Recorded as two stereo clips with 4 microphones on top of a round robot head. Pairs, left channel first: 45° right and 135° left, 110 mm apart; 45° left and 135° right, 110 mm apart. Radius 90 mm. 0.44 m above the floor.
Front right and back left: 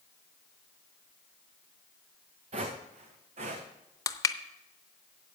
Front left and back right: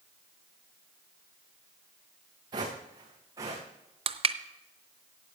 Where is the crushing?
105° right, 0.7 m.